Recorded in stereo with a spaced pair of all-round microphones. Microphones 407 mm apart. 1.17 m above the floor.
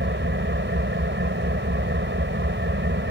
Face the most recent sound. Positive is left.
turn(degrees=-30)  # may be behind; listen again after turning